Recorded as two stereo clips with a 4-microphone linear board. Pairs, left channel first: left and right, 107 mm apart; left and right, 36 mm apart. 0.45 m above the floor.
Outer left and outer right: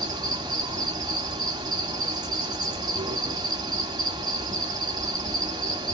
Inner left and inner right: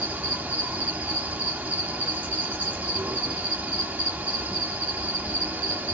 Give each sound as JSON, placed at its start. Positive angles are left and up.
{"t": 0.0, "sound": "an insect", "side_deg": -40, "distance_m": 1.6}